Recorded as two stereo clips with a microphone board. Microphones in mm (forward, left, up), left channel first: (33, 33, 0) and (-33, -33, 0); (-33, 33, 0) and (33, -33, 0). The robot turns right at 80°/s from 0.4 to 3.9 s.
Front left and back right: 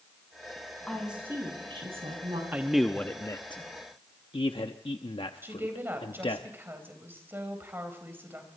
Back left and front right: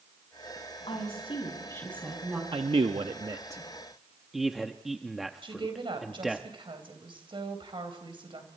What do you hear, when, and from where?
0.9 s a woman speaking: 125° left, 6.5 m; by 2.4 s 110° right, 6.5 m
2.5 s a man speaking: 70° right, 0.9 m; by 6.4 s 45° left, 0.9 m
5.4 s a woman speaking: 70° right, 3.5 m